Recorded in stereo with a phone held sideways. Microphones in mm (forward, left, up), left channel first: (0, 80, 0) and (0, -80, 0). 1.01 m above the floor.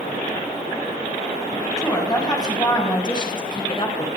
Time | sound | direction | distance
1.8 | a woman speaking | 20° left (ahead or behind) | 7 m